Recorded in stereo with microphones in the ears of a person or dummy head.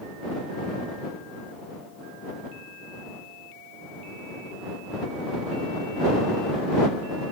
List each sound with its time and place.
Only background noise.